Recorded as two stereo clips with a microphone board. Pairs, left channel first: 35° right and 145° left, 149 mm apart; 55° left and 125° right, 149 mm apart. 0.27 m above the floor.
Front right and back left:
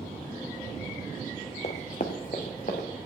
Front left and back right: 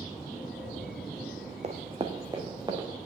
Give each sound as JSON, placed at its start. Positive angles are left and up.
{"t": 1.6, "sound": "running footsteps", "azimuth_deg": -80, "distance_m": 0.8}